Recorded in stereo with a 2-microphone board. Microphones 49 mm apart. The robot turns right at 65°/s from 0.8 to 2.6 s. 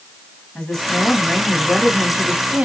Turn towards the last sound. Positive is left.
turn(degrees=-25)  # may be behind; listen again after turning